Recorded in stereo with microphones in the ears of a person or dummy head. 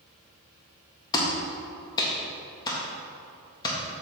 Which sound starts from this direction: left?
A clap, at 1.1 s.